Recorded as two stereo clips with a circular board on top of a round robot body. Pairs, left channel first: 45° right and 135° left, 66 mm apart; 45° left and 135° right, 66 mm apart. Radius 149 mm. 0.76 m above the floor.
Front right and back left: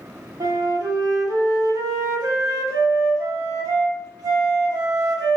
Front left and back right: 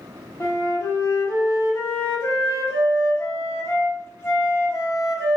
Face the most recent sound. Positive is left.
turn(degrees=100)